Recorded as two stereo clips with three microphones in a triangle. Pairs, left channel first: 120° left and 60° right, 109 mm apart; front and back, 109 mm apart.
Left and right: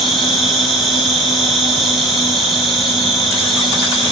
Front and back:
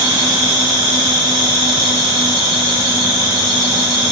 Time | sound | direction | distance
0.0 | an insect | 150° right | 2 m